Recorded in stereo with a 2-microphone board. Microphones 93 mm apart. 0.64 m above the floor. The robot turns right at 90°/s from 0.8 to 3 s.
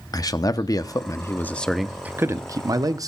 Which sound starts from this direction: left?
A man speaking, at 0.1 s.